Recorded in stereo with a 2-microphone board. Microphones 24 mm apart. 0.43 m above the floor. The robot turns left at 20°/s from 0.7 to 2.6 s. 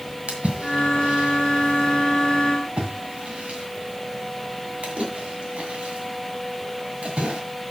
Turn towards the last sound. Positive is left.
turn(degrees=-75)  # may be behind; listen again after turning